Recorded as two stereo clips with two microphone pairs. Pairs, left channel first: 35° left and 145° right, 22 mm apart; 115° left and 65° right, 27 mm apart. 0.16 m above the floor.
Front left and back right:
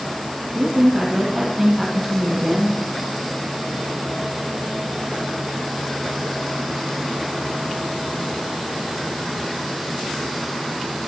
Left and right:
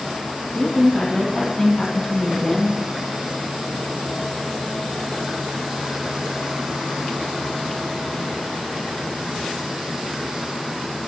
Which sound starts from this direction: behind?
A woman speaking, at 0.6 s.